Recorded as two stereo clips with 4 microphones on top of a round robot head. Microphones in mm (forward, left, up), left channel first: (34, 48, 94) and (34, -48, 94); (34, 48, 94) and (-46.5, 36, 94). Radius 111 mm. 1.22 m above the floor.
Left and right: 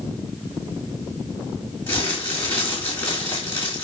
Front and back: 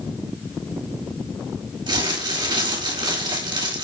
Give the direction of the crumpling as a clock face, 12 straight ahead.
7 o'clock.